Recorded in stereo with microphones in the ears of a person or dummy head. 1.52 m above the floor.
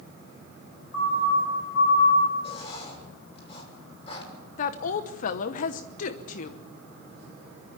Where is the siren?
65° left (ahead or behind), 4.5 m; by 2.3 s 75° left (ahead or behind), 6.5 m.